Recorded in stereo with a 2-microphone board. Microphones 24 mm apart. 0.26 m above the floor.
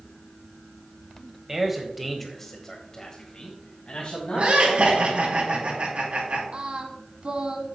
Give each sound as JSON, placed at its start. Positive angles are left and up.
{"t": 1.5, "sound": "a man speaking", "side_deg": -20, "distance_m": 1.4}
{"t": 4.3, "sound": "laughter", "side_deg": -60, "distance_m": 4.0}
{"t": 6.5, "sound": "singing", "side_deg": -55, "distance_m": 1.1}